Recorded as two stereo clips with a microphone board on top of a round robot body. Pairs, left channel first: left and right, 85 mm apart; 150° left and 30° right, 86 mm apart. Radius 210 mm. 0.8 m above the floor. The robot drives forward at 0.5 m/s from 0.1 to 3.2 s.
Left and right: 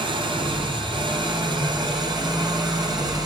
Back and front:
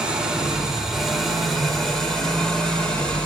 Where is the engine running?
110° right, 3.5 m; by 3.3 s 130° right, 4.5 m.